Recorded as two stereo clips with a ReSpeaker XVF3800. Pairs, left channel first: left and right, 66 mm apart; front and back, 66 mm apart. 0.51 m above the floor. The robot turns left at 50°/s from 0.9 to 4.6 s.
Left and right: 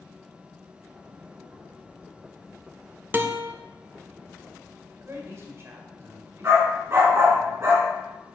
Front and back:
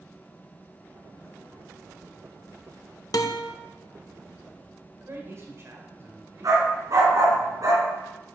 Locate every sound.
3.1 s a guitar: 30° right, 0.6 m; by 3.5 s 50° right, 0.6 m
5.0 s a man speaking: 135° right, 1.6 m
6.4 s a dog barking: 145° right, 2 m